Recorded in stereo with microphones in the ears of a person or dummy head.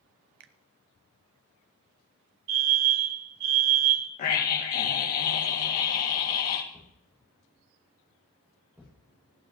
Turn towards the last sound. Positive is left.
turn(degrees=-10)  # may be behind; listen again after turning